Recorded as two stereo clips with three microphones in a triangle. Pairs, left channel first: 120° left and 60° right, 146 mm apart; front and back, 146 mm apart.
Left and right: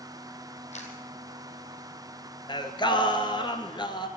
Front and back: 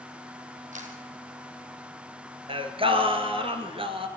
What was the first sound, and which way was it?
A camera shutter, 155° left.